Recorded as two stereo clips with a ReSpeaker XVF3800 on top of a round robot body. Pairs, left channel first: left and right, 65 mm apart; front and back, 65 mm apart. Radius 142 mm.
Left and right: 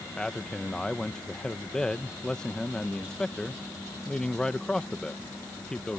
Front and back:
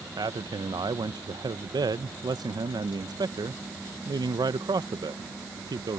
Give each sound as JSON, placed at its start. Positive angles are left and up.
{"t": 0.2, "sound": "a man speaking", "azimuth_deg": 170}